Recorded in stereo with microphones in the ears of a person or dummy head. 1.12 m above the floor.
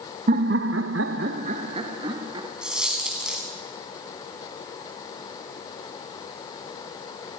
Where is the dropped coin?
5° right (ahead or behind), 3.5 m.